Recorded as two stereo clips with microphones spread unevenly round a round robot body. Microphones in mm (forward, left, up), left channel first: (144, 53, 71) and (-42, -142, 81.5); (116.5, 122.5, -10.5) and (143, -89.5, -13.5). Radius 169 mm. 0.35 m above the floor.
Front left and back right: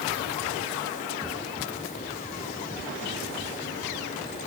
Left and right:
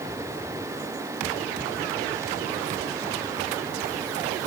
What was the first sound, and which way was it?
Only background noise.